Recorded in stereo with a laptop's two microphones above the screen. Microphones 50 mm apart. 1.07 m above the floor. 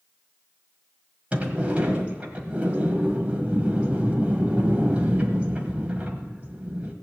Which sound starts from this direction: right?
A sliding door, at 1.3 s.